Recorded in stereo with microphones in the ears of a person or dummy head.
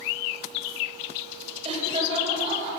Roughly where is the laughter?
Right.